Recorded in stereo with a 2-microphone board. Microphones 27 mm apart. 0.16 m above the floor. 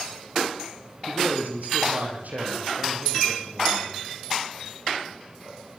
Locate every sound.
1.1 s a man speaking: 80° right, 7.5 m